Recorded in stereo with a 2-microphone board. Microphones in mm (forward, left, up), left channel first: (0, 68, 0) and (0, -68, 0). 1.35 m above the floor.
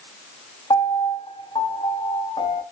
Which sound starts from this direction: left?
A piano, at 0.7 s.